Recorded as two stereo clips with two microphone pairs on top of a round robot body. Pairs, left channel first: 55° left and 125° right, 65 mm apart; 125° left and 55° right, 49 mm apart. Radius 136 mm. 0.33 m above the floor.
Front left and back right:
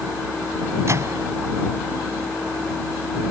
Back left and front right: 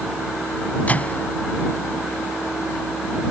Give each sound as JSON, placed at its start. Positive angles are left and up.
{"t": 0.9, "sound": "a microwave", "azimuth_deg": -175}